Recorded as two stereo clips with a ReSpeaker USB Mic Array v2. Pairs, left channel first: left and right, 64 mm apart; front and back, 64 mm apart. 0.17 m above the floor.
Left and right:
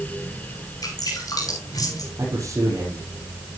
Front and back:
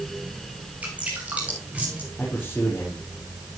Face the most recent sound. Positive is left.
turn(degrees=-60)